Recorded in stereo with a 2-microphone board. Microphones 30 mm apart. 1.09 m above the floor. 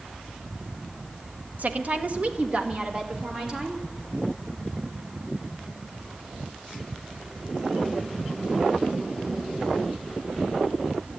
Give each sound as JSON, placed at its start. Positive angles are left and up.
{"t": 1.6, "sound": "a woman speaking", "side_deg": -55, "distance_m": 1.1}